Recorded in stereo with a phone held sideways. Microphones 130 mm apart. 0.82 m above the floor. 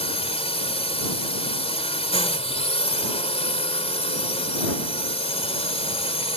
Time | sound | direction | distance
0.0 | a drone | 45° left (ahead or behind) | ?